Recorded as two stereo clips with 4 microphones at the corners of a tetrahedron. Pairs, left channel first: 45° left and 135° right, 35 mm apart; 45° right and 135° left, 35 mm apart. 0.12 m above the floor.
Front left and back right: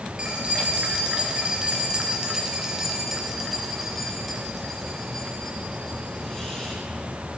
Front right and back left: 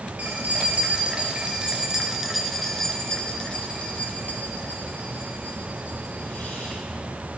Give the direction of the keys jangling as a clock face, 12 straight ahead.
6 o'clock.